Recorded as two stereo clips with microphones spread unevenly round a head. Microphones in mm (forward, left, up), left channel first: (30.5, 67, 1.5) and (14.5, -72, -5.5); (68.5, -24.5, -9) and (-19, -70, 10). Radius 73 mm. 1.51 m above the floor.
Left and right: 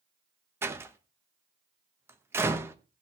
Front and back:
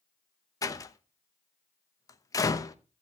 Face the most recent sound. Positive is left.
turn(degrees=-25)